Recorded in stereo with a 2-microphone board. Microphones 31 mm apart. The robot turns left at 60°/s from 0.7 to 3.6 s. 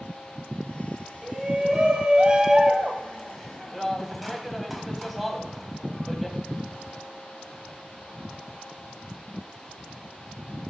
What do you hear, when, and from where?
1.2 s a shout: 15° right (ahead or behind), 1.1 m; by 6.4 s centre (ahead or behind), 1.1 m